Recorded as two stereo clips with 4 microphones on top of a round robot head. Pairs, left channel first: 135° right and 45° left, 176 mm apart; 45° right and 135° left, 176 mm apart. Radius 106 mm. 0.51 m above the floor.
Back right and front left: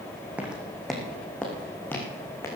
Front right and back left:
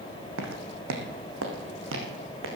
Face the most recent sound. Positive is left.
turn(degrees=150)